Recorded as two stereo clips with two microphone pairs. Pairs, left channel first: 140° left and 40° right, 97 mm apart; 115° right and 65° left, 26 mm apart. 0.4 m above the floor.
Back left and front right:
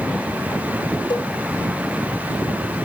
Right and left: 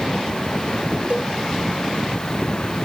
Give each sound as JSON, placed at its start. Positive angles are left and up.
{"t": 1.1, "sound": "a cowbell", "azimuth_deg": 105, "distance_m": 4.0}